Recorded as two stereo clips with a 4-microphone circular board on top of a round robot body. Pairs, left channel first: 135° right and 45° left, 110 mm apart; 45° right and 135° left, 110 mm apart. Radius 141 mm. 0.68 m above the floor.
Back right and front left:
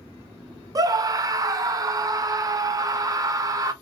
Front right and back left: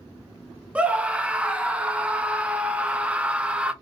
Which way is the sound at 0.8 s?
65° left.